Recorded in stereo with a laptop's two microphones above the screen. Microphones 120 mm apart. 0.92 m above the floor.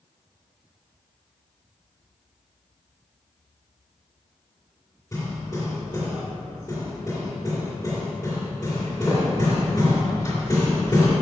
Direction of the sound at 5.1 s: 30° left (ahead or behind).